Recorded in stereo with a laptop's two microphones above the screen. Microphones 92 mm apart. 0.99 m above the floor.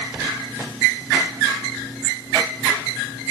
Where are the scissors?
I don't hear scissors.